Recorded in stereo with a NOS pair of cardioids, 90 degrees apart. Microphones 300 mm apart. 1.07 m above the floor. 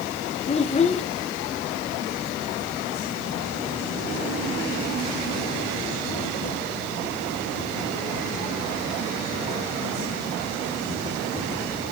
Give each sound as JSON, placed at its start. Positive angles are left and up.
{"t": 0.5, "sound": "a child speaking", "azimuth_deg": 20, "distance_m": 0.6}